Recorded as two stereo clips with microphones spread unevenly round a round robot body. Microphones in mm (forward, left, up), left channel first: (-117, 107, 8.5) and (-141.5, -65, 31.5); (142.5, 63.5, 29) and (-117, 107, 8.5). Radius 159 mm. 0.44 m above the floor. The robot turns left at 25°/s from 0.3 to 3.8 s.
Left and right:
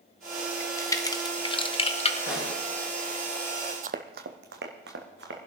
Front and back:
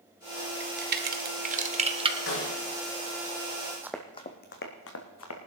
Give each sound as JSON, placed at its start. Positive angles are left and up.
{"t": 0.6, "sound": "a crack", "azimuth_deg": 150, "distance_m": 1.2}
{"t": 2.3, "sound": "a snare drum", "azimuth_deg": 30, "distance_m": 7.0}
{"t": 3.8, "sound": "running footsteps", "azimuth_deg": -105, "distance_m": 0.6}